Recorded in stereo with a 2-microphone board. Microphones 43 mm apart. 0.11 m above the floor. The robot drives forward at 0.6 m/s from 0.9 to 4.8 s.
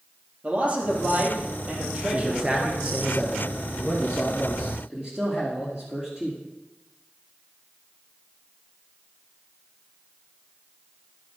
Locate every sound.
0.4 s a man speaking: 40° right (ahead or behind), 3 m; by 3.0 s 30° right (ahead or behind), 4 m
2.1 s a man speaking: 25° right (ahead or behind), 1.6 m; by 6.4 s 15° right (ahead or behind), 3 m